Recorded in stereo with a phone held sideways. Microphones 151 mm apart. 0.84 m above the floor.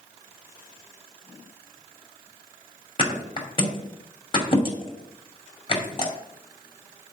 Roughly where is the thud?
Left.